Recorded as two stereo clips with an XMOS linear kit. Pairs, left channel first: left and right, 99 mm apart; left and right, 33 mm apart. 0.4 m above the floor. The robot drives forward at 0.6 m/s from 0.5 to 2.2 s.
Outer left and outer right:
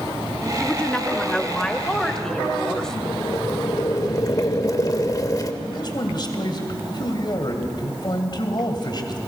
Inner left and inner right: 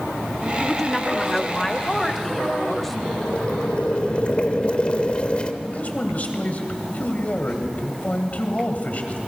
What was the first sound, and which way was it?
A woman speaking, 10° left (ahead or behind).